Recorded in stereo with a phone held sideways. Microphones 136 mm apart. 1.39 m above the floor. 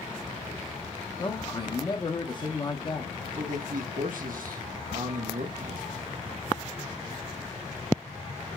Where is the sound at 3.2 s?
90° right, 1.0 m.